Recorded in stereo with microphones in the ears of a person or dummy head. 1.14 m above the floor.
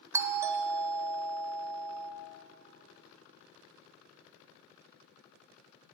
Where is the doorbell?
15° right (ahead or behind), 0.6 m.